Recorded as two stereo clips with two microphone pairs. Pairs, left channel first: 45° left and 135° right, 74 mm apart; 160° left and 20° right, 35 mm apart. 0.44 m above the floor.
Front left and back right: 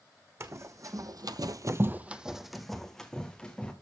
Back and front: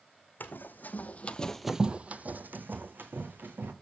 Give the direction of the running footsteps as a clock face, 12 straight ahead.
6 o'clock.